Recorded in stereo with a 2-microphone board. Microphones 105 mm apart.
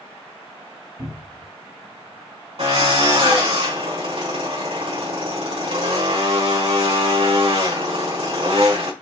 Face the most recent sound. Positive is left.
turn(degrees=-75)  # may be behind; listen again after turning